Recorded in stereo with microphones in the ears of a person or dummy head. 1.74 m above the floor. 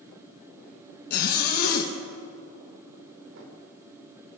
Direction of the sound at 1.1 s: 55° left (ahead or behind).